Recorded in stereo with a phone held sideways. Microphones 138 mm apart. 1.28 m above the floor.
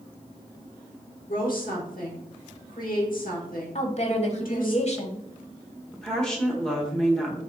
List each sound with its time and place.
1.3 s a woman speaking: 85° left, 1.2 m
3.8 s a woman speaking: 50° left (ahead or behind), 0.9 m
5.9 s a woman speaking: 5° left (ahead or behind), 1.3 m